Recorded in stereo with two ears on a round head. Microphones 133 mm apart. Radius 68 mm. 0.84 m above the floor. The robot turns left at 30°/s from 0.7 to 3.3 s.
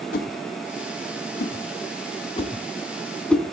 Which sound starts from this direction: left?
A whoosh, at 0.1 s.